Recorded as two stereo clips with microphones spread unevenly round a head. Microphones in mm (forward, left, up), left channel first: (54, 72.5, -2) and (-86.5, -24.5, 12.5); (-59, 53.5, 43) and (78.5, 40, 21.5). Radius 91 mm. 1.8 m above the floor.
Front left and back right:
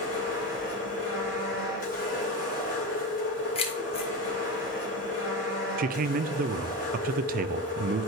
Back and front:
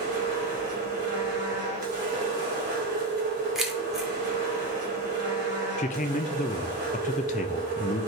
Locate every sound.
0.0 s a machine running: 10° right, 3.5 m
3.5 s keys jangling: 90° left, 1.3 m
5.8 s a man speaking: 160° right, 0.6 m